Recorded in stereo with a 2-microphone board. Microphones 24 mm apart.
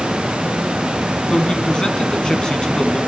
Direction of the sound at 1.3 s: 45° left (ahead or behind).